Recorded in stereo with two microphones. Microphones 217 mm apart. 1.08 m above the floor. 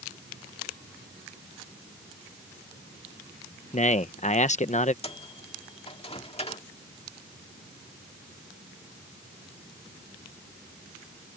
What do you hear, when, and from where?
3.7 s a man speaking: 35° left (ahead or behind)
5.0 s a microwave: 25° left (ahead or behind)